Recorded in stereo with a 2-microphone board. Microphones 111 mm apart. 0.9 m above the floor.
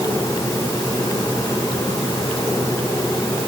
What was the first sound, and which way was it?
Only background noise.